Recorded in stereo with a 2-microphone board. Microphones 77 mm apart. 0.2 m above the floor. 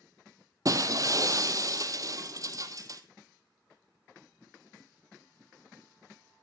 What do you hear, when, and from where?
0.7 s breaking glass: 45° right (ahead or behind), 0.8 m